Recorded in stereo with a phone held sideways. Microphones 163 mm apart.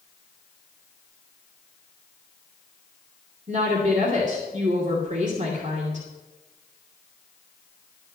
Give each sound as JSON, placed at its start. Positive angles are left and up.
{"t": 3.5, "sound": "a woman speaking", "side_deg": -50, "distance_m": 2.5}